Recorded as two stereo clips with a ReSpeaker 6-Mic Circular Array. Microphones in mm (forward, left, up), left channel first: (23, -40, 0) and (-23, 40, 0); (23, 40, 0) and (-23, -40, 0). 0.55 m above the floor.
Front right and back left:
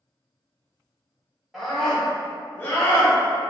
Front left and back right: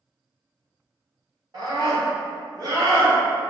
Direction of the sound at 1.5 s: 155° right.